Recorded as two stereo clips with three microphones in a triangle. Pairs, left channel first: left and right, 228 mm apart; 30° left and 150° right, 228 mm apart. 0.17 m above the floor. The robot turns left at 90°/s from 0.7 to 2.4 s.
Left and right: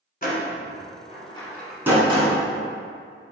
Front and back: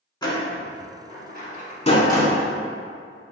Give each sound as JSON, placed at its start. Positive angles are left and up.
{"t": 0.2, "sound": "a door slam", "azimuth_deg": 90, "distance_m": 1.0}